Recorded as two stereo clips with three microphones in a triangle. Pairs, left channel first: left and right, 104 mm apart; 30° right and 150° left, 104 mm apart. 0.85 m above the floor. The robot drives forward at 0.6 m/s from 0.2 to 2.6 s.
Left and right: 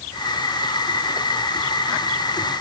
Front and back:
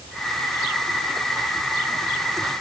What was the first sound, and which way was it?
Only background noise.